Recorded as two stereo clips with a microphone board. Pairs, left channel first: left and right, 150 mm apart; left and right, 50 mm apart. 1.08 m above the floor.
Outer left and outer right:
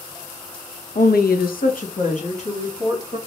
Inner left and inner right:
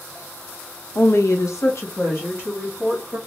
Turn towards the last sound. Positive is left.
turn(degrees=45)  # may be behind; listen again after turning